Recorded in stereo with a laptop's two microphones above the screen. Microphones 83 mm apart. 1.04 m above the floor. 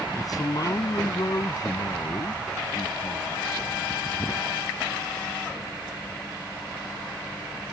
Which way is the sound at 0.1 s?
45° left (ahead or behind).